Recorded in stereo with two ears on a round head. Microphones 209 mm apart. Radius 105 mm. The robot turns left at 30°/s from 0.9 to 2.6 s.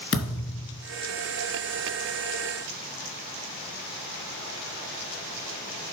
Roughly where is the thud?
Left.